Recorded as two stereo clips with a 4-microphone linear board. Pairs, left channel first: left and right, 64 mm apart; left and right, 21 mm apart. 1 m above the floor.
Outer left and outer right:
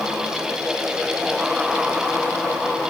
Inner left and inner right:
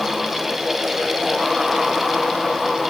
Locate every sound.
Only background noise.